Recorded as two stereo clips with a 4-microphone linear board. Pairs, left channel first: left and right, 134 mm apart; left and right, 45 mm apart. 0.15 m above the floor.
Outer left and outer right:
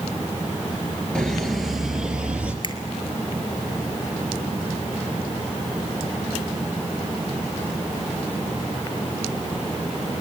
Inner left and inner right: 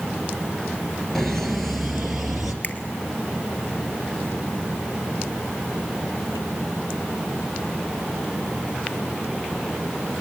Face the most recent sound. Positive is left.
turn(degrees=40)  # may be behind; listen again after turning